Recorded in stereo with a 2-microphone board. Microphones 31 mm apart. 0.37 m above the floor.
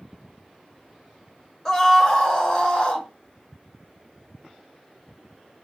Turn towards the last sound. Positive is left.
turn(degrees=35)  # may be behind; listen again after turning